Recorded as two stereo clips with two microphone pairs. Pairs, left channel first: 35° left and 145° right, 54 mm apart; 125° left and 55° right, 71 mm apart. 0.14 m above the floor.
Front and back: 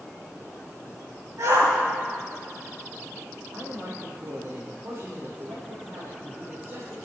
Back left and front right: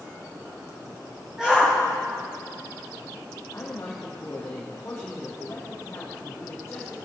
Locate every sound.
1.4 s a shout: 135° right, 6 m
3.5 s a man speaking: 170° right, 4 m